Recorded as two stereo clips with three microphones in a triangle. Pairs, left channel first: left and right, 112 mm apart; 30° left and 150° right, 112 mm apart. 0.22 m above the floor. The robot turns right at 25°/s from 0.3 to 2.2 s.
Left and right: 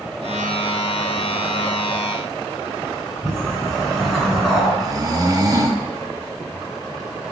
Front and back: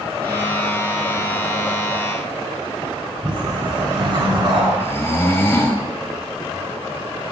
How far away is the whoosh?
About 1.6 m.